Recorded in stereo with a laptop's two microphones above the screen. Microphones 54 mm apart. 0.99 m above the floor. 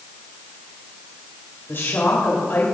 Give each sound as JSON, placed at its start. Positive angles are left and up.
{"t": 1.7, "sound": "a woman speaking", "side_deg": 50, "distance_m": 3.0}